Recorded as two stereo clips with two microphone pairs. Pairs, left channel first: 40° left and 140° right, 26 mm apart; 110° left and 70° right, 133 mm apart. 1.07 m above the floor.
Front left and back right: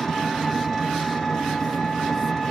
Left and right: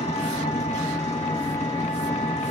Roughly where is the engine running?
Behind left.